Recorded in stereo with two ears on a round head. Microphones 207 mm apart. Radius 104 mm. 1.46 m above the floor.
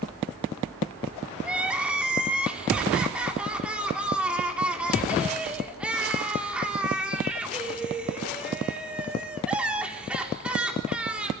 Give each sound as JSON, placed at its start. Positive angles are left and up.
{"t": 1.4, "sound": "crying", "side_deg": -5, "distance_m": 4.0}